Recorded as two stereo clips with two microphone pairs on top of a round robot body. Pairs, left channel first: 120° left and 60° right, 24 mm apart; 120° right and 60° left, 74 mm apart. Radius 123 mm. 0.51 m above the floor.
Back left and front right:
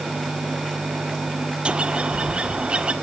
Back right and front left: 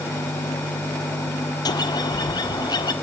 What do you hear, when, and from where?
1.6 s a bird: 95° right, 1.5 m